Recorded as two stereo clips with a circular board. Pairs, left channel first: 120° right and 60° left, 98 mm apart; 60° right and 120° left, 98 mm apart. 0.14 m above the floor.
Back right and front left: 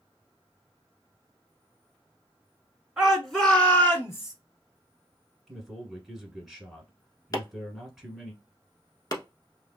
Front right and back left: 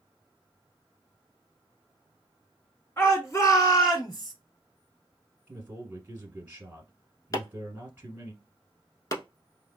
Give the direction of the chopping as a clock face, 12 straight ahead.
3 o'clock.